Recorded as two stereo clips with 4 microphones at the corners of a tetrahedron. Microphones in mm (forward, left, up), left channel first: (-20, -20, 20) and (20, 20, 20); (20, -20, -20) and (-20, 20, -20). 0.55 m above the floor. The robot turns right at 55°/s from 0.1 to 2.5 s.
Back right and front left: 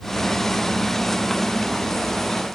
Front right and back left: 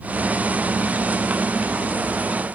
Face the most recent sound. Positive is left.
No sound to turn to.